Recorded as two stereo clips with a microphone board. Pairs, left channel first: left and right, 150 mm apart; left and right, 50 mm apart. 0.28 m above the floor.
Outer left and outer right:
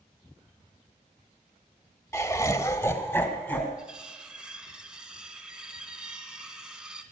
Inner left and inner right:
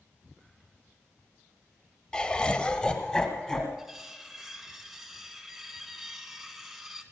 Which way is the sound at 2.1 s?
20° left (ahead or behind).